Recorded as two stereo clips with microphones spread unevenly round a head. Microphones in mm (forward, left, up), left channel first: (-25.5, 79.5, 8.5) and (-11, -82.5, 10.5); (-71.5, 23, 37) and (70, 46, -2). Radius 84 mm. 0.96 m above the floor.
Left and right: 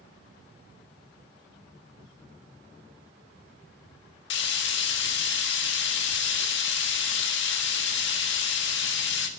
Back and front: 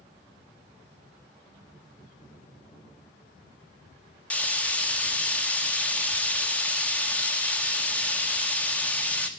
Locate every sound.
4.3 s frying: 105° left, 1.4 m